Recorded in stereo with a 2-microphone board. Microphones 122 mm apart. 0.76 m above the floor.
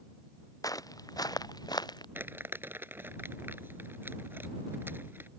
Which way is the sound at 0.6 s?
30° left (ahead or behind).